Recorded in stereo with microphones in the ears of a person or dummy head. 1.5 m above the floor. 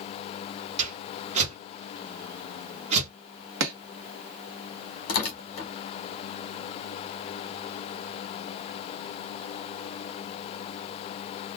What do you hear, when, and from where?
0.8 s a whoosh: 35° right (ahead or behind), 1.0 m
3.6 s chopping: 65° right (ahead or behind), 0.9 m
5.1 s tearing paper: 40° left (ahead or behind), 0.9 m